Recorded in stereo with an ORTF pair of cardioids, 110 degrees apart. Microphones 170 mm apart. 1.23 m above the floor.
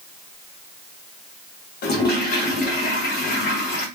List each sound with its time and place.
1.8 s a toilet flushing: 65° left, 0.8 m